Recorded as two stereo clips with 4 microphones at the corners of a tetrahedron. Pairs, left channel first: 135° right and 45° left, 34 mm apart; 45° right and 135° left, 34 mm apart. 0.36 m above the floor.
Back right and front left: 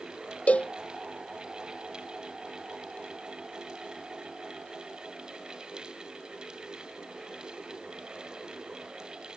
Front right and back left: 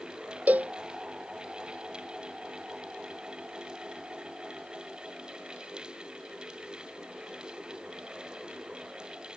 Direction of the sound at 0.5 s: Straight behind.